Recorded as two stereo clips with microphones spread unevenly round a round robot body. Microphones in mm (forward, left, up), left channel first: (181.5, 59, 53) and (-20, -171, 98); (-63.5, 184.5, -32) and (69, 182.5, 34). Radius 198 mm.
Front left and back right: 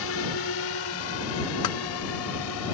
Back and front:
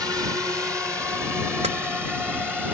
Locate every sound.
0.0 s a drone: 75° left; by 2.8 s 85° left
1.6 s tapping: 25° left